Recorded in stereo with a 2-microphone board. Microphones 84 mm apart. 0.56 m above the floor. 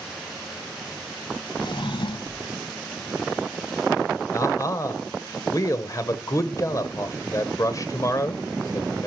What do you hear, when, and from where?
1.6 s a drawer: 75° left (ahead or behind), 1.1 m
4.3 s a man speaking: 40° left (ahead or behind), 1.8 m